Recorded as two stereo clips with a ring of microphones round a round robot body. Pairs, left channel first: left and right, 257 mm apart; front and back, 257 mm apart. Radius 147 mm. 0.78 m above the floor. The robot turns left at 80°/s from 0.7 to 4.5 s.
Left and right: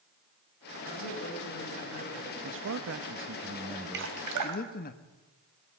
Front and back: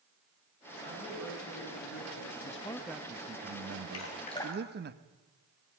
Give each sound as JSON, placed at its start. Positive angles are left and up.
{"t": 0.8, "sound": "a woman speaking", "azimuth_deg": 135, "distance_m": 8.0}
{"t": 2.4, "sound": "a man speaking", "azimuth_deg": -55, "distance_m": 1.0}
{"t": 3.9, "sound": "dripping", "azimuth_deg": -45, "distance_m": 2.5}